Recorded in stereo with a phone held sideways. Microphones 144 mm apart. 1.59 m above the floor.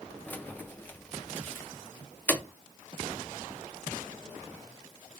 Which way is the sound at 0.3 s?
15° left (ahead or behind).